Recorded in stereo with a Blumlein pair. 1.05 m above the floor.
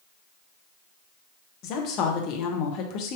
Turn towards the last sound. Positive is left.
turn(degrees=35)